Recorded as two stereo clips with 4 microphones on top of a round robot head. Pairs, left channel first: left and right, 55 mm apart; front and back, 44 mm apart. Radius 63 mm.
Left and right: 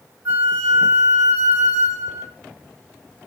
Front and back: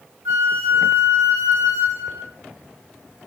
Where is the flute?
145° right, 1.7 m.